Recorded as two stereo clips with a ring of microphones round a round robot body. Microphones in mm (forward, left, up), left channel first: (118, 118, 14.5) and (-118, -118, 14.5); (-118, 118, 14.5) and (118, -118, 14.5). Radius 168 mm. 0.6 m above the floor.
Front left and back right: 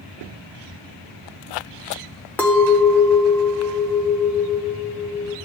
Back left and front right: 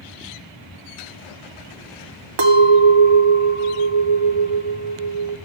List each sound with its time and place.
2.4 s a clink: 40° right, 0.9 m